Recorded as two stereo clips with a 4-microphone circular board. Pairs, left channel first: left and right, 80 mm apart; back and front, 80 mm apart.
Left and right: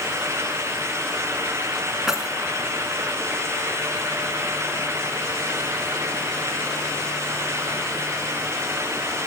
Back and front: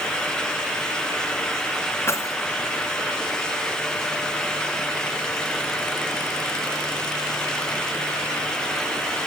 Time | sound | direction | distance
2.1 | keys jangling | 170° right | 0.9 m